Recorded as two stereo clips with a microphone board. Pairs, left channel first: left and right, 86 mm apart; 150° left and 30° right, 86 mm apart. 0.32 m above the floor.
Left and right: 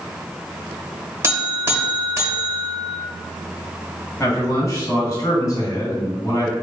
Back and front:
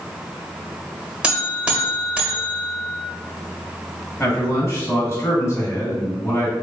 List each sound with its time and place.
1.2 s a buzzer: 95° right, 1.0 m
4.2 s a man speaking: 110° left, 1.7 m